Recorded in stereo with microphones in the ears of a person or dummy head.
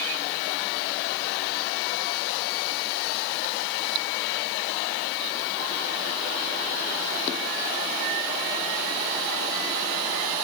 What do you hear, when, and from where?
Only background noise.